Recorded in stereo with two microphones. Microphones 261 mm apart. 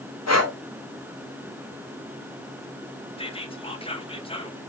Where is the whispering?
20° left (ahead or behind), 0.7 m.